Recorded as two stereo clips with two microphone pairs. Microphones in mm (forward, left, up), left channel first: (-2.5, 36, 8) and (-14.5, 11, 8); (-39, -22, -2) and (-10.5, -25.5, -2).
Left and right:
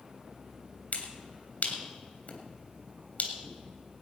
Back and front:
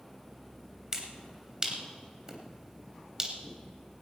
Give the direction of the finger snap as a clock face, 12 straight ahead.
10 o'clock.